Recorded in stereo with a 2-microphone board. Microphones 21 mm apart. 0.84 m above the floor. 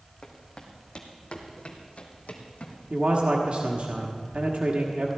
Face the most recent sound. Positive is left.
turn(degrees=-55)  # may be behind; listen again after turning